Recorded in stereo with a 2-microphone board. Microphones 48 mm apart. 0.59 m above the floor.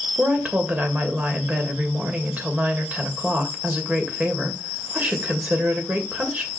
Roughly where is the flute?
I don't hear a flute.